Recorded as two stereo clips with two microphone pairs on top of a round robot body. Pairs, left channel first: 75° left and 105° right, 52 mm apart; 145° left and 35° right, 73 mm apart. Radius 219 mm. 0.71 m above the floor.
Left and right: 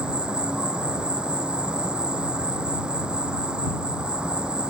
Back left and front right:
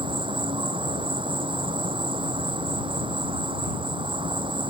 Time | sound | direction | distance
0.0 | an insect | 35° right | ?